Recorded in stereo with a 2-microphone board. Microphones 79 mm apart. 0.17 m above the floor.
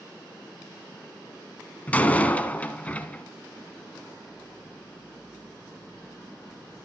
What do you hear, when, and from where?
1.9 s a door slam: 20° left (ahead or behind), 1.1 m